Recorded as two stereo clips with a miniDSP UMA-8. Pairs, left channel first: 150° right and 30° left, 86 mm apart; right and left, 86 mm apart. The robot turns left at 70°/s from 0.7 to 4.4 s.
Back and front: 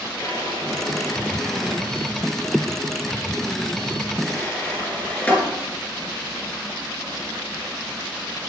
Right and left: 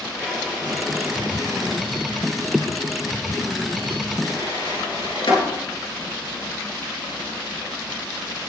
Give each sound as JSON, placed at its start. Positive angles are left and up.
{"t": 0.2, "sound": "a drawer", "azimuth_deg": -175, "distance_m": 5.0}